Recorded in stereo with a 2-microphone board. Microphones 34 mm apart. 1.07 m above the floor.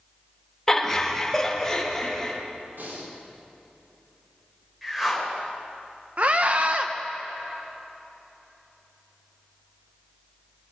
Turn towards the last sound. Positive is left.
turn(degrees=-40)  # may be behind; listen again after turning